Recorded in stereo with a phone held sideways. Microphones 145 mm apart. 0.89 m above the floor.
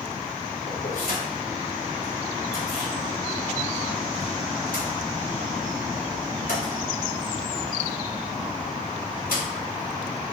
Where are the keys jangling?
85° left, 2 m.